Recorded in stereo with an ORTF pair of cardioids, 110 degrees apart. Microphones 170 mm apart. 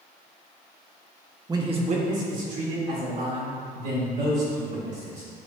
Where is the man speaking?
20° right, 1.1 m; by 5.3 s 75° right, 6 m.